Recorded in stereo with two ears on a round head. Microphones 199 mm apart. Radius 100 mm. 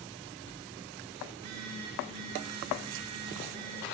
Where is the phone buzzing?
80° right, 2.5 m.